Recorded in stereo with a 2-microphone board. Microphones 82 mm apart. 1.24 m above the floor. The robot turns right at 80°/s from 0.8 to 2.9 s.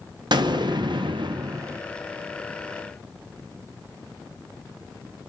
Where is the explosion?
110° right, 0.5 m; by 1.8 s 30° right, 0.5 m.